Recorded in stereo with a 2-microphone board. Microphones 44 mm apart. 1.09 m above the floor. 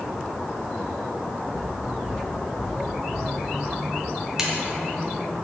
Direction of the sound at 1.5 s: 55° right (ahead or behind).